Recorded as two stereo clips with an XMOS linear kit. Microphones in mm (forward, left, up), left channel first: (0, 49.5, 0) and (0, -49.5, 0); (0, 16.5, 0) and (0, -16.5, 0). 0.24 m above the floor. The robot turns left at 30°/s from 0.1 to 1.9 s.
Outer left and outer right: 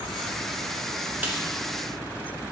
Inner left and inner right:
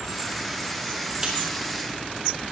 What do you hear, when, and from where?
1.2 s a snare drum: 20° right (ahead or behind), 1.4 m; by 1.4 s 15° right (ahead or behind), 1.4 m